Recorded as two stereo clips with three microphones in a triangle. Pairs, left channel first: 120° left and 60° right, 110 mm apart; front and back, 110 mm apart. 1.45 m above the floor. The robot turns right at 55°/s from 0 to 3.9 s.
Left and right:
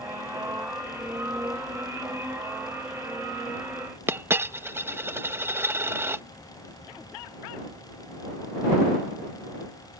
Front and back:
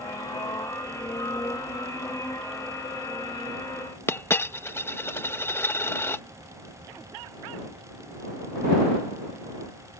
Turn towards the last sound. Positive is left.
turn(degrees=-30)